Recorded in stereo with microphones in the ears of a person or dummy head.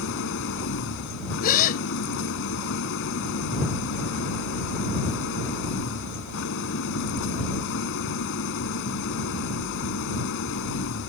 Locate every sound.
0.0 s an engine running: 65° left (ahead or behind)
1.4 s a gasp: 45° left (ahead or behind)